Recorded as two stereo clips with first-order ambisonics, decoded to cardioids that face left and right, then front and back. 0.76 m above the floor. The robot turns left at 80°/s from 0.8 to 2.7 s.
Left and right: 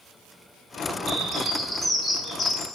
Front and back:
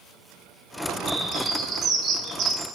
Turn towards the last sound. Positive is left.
turn(degrees=135)